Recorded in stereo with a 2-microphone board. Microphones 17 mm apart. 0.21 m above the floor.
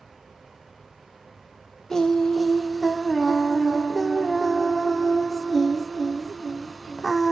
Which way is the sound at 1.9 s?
30° left (ahead or behind).